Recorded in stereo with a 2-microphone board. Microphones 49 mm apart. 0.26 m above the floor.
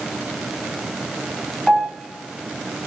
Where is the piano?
5° left (ahead or behind), 0.8 m.